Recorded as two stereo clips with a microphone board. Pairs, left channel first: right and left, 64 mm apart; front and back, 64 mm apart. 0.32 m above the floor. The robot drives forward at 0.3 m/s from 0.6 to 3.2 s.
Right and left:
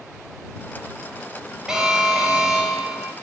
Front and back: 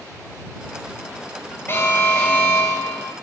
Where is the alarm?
20° left, 2 m; by 3.1 s 25° left, 2 m.